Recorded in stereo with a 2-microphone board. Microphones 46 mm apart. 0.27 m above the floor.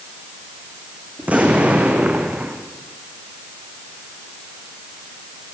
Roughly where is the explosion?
Right.